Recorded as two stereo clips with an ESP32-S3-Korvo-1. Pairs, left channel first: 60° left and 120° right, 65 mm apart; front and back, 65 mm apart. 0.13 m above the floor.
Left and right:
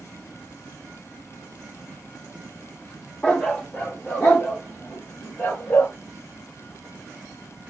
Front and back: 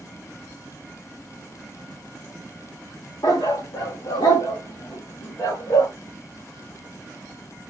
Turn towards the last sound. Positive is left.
turn(degrees=15)